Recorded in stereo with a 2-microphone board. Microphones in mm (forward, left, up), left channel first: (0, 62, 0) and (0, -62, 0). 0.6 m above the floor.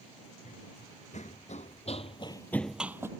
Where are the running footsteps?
70° left (ahead or behind); by 3.1 s 20° right (ahead or behind).